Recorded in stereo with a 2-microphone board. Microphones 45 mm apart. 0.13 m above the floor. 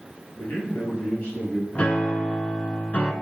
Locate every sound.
0.4 s a man speaking: 50° left (ahead or behind), 3 m; by 1.6 s 35° left (ahead or behind), 3 m
1.8 s a piano: 30° left (ahead or behind), 0.7 m